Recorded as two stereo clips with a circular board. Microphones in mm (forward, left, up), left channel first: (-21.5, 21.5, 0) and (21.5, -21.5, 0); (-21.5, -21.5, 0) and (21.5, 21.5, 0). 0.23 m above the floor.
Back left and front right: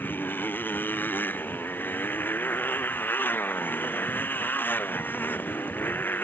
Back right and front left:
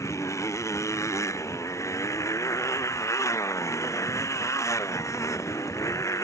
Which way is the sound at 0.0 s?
170° right.